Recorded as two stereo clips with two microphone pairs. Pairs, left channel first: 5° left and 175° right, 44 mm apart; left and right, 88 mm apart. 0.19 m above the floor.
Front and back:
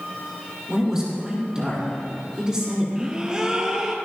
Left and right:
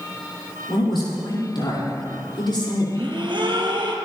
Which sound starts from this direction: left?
A man speaking, at 0.7 s.